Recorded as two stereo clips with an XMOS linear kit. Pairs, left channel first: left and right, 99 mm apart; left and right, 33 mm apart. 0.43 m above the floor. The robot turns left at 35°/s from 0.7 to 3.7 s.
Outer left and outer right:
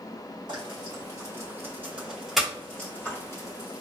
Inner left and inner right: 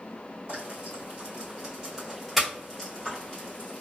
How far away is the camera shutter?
I don't hear a camera shutter.